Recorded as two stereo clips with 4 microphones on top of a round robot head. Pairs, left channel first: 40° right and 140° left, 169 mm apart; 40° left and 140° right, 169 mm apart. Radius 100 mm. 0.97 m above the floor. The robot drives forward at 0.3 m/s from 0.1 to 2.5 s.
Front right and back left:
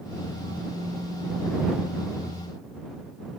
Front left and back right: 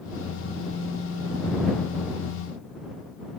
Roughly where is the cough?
No cough in this recording.